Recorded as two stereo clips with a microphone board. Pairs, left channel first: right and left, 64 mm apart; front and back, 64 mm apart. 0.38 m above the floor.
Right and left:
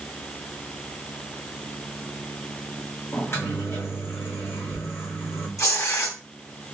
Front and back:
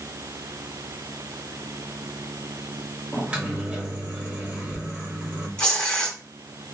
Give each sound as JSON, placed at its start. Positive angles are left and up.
{"t": 3.1, "sound": "a microwave", "azimuth_deg": -115, "distance_m": 1.5}
{"t": 5.6, "sound": "tearing paper", "azimuth_deg": -70, "distance_m": 1.3}